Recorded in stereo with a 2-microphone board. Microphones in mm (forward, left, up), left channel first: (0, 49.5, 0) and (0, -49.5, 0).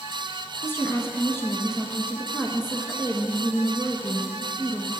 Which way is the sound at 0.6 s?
25° left (ahead or behind).